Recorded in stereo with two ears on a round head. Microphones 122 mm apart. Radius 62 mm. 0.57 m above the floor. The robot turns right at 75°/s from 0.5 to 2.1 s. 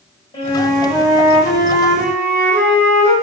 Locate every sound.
0.3 s a flute: 140° left, 1.7 m; by 3.1 s 100° right, 1.7 m